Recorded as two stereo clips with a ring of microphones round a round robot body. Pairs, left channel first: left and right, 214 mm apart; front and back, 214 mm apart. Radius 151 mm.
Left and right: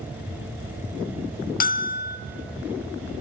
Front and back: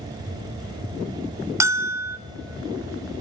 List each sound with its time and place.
1.6 s a bell: 110° left, 0.9 m